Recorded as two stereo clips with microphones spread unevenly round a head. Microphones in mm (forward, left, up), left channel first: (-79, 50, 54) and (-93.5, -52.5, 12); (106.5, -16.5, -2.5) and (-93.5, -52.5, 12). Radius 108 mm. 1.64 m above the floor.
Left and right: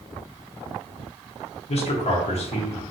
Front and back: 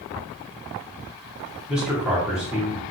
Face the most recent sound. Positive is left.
turn(degrees=105)